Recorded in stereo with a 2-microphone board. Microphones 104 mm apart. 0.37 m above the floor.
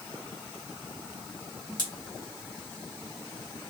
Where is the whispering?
No whispering in this recording.